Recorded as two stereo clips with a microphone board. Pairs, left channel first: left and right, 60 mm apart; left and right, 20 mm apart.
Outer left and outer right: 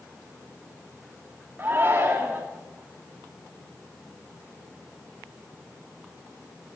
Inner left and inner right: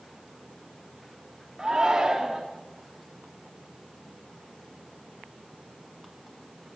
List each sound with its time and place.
1.6 s a shout: 35° right (ahead or behind), 1.9 m